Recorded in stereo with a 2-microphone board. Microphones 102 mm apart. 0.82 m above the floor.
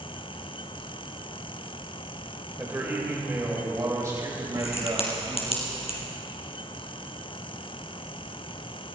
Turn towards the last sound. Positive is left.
turn(degrees=70)  # may be behind; listen again after turning